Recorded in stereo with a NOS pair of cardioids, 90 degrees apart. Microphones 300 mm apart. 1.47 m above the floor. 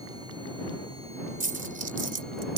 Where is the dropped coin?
30° right.